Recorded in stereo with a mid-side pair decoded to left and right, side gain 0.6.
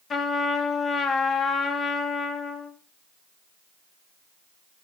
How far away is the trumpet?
About 2.5 m.